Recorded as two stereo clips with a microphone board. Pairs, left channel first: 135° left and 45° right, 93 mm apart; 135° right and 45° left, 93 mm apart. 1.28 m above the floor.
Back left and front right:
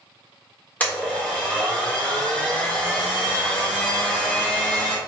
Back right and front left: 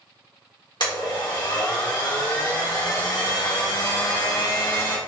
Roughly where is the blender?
Behind right.